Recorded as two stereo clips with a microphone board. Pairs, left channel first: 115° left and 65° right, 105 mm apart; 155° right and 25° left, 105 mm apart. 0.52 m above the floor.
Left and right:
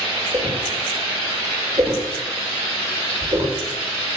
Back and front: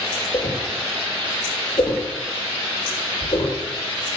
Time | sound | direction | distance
0.3 | a whoosh | 120° right | 9 m